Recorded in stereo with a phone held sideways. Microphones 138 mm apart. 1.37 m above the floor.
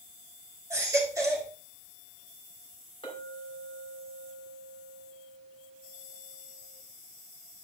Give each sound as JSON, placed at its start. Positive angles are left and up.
{"t": 0.7, "sound": "a baby crying", "side_deg": -20, "distance_m": 3.5}
{"t": 3.0, "sound": "a clink", "side_deg": 40, "distance_m": 4.0}